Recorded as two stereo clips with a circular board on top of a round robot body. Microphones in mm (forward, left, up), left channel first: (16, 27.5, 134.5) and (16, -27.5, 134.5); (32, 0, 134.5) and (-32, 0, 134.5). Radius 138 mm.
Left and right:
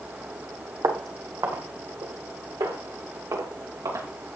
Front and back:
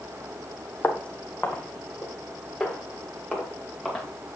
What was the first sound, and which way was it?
Footsteps, 70° right.